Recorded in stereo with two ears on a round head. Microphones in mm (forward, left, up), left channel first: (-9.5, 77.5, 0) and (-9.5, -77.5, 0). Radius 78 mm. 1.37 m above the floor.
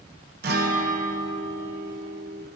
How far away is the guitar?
About 0.8 m.